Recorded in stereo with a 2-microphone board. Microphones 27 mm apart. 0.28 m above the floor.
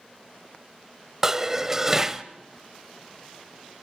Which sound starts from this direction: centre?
Dishes clattering, at 1.2 s.